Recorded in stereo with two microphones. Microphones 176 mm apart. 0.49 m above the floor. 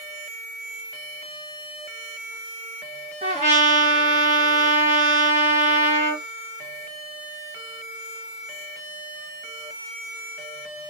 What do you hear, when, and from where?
3.2 s a trumpet: 45° right (ahead or behind), 1.6 m